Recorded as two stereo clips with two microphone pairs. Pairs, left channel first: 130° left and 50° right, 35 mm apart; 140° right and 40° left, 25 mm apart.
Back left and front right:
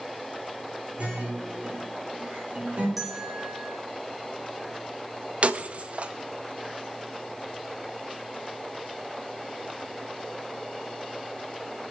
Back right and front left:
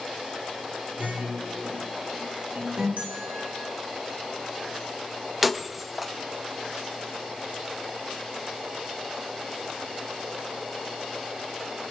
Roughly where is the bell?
Ahead left.